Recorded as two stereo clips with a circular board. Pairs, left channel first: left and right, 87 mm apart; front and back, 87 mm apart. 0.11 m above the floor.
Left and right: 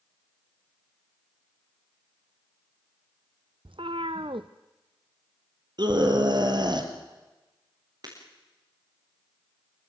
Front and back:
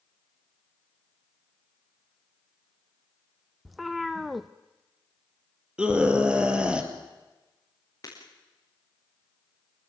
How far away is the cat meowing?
About 0.8 m.